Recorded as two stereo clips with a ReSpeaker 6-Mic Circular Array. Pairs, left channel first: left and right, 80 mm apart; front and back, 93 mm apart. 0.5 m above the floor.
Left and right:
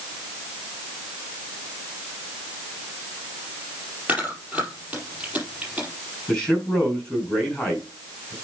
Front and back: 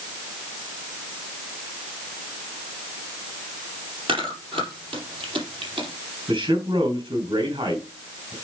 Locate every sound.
4.1 s chewing: 165° right, 4.5 m
6.3 s a man speaking: 170° left, 5 m